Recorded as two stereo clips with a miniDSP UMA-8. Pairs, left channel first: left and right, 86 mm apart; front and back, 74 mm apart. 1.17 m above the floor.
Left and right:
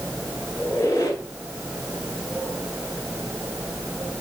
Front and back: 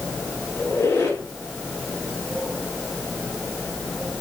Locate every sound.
0.6 s a squeak: 50° left, 1.6 m